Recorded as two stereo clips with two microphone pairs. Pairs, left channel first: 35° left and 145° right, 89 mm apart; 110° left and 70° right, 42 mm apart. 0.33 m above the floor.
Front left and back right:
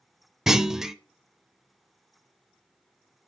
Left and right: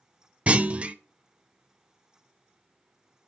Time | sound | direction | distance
0.5 | a clunk | 65° right | 0.6 m